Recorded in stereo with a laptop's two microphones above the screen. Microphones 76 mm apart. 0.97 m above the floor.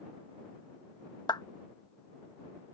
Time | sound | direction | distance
1.3 | a clap | 65° left (ahead or behind) | ?